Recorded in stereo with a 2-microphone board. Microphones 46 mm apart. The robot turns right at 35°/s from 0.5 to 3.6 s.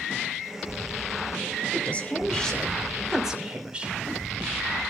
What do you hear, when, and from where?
1.7 s a woman speaking: 140° left, 2.5 m; by 4.0 s 155° right, 2.5 m